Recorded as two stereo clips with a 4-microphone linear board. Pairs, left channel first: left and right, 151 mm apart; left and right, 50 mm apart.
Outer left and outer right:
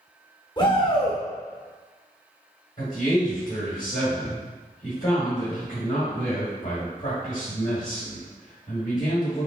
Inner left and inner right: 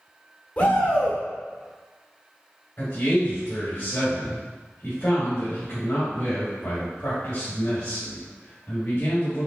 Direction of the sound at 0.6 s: 30° left (ahead or behind).